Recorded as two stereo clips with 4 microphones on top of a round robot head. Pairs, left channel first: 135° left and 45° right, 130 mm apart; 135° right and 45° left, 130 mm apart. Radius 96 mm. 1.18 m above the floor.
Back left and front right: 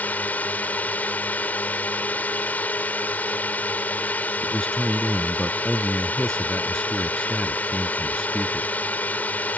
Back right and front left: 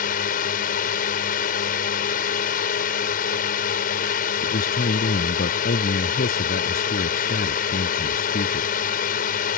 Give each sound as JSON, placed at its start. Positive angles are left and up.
{"t": 0.0, "sound": "a drone", "azimuth_deg": -145}
{"t": 4.4, "sound": "a man speaking", "azimuth_deg": -135}